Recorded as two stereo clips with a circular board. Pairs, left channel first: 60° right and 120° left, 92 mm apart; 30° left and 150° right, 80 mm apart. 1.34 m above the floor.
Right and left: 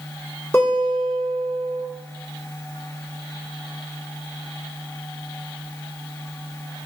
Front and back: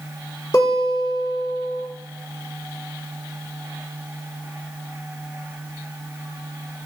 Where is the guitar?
Straight ahead, 1.7 m.